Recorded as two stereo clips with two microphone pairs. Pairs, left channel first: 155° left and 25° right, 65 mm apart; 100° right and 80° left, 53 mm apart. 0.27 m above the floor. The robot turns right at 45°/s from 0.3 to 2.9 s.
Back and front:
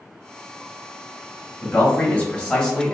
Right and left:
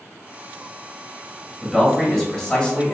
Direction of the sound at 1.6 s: 160° left.